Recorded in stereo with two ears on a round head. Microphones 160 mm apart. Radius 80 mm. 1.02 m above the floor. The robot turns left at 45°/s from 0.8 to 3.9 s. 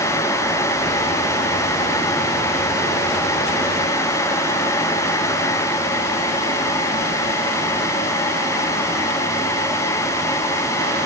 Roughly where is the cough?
No cough in this recording.